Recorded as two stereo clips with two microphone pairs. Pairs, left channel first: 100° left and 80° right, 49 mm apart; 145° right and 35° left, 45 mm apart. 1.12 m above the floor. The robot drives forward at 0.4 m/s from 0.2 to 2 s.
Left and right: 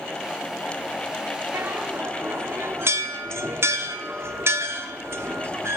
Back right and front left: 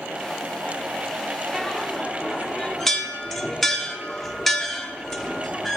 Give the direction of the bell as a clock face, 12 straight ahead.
2 o'clock.